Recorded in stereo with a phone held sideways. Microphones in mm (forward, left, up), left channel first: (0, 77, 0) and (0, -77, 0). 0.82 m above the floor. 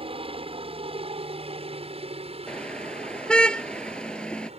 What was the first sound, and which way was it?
A helicopter, 40° right (ahead or behind).